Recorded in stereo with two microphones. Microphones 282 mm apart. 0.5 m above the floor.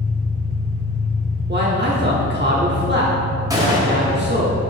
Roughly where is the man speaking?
Right.